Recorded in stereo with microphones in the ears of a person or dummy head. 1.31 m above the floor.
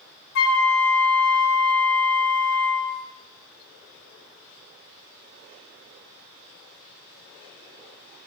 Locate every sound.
0.3 s a flute: 60° left (ahead or behind), 0.7 m